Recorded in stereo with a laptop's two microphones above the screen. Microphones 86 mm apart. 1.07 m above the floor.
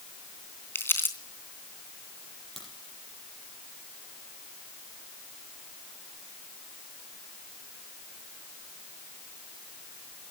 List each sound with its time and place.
0.8 s crumpling: 25° left (ahead or behind), 3 m
2.6 s a crack: centre (ahead or behind), 6.5 m